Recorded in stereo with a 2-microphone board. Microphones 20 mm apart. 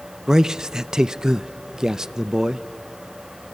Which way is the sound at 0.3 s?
30° right (ahead or behind).